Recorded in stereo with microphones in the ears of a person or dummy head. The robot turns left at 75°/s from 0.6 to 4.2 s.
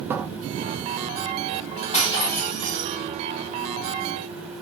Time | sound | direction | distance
0.1 | a cupboard door | 10° right (ahead or behind) | 0.5 m
1.9 | breaking glass | 40° left | 3 m